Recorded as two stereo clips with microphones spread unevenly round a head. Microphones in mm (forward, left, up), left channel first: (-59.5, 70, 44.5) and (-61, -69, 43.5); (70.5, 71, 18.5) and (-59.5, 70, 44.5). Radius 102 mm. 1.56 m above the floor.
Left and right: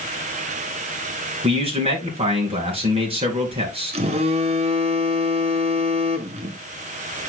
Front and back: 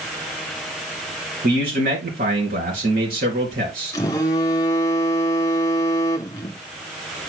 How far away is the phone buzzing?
About 0.6 m.